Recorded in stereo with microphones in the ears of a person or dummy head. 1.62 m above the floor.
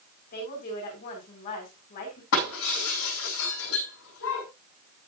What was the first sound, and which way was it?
A woman speaking, 45° left (ahead or behind).